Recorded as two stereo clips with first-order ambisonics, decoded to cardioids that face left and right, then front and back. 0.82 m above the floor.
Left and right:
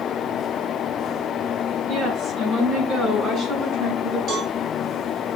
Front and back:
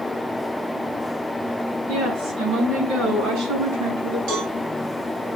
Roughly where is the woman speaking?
Behind right.